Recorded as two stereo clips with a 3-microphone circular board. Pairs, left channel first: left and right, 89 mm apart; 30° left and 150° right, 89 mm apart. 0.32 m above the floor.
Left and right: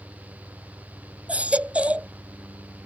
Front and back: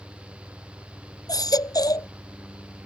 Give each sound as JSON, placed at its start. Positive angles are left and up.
{"t": 1.3, "sound": "a baby crying", "azimuth_deg": -15}